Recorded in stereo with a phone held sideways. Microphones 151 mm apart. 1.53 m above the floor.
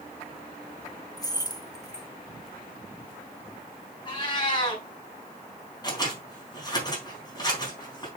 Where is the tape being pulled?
No tape being pulled in this recording.